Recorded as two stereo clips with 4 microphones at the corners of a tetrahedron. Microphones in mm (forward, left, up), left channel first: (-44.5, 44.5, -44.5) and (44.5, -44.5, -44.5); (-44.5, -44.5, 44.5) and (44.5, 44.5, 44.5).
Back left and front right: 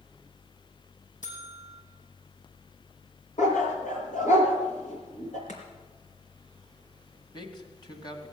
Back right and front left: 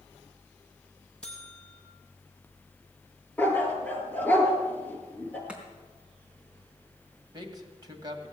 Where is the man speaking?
95° left, 2 m.